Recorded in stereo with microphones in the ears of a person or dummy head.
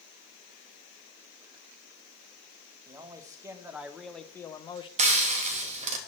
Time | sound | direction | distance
2.9 | a man speaking | 25° right (ahead or behind) | 1.3 m
5.0 | frying | 35° right (ahead or behind) | 1.6 m